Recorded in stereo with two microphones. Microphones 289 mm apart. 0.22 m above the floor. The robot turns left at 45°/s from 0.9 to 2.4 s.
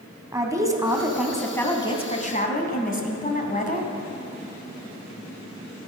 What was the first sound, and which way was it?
A woman speaking, 160° right.